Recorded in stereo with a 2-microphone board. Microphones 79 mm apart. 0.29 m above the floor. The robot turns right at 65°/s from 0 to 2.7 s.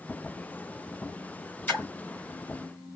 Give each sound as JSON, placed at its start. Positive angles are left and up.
{"t": 1.7, "sound": "a splash", "side_deg": 20, "distance_m": 1.5}